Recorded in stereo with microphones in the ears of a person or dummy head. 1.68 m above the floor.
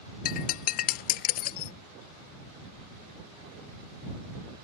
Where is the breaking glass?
40° left (ahead or behind).